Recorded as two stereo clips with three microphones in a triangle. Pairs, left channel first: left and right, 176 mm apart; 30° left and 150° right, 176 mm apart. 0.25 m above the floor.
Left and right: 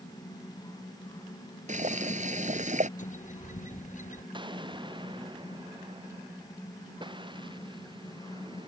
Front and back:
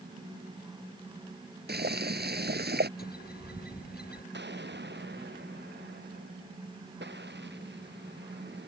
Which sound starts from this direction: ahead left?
A bird, at 3.0 s.